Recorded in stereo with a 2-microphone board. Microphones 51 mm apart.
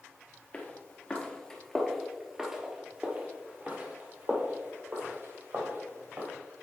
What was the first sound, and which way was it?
Footsteps, 30° left (ahead or behind).